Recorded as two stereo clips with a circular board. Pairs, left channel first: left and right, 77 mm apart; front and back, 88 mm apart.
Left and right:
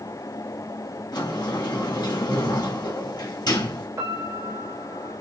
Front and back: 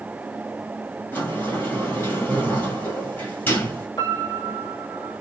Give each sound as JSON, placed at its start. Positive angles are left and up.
{"t": 1.1, "sound": "a sliding door", "azimuth_deg": 65, "distance_m": 2.0}
{"t": 4.0, "sound": "a piano", "azimuth_deg": -40, "distance_m": 2.5}